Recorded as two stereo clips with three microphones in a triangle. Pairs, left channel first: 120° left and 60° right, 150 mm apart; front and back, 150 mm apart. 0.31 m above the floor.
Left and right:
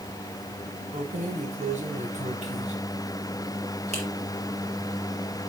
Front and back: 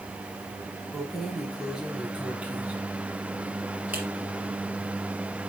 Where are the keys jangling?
90° right, 1.4 m; by 4.1 s 100° right, 4 m.